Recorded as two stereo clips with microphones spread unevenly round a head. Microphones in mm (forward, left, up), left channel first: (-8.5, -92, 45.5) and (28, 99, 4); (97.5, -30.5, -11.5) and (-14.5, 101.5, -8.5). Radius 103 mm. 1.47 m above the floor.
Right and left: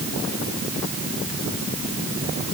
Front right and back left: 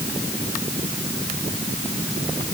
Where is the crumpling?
No crumpling in this recording.